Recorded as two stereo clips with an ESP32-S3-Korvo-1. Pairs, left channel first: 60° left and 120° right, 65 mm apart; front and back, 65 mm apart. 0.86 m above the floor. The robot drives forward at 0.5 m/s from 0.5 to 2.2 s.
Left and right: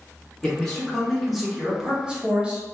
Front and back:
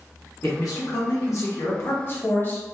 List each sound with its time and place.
0.4 s a man speaking: 20° right, 1.4 m; by 2.6 s 50° right, 0.8 m